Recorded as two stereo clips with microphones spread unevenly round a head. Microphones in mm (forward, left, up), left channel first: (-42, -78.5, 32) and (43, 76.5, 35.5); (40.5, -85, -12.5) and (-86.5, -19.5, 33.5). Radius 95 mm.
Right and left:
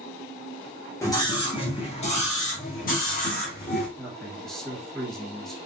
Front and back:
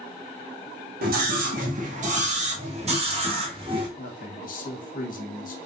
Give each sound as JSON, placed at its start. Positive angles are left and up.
{"t": 1.0, "sound": "a scream", "azimuth_deg": 170, "distance_m": 1.2}
{"t": 4.0, "sound": "a man speaking", "azimuth_deg": -30, "distance_m": 1.5}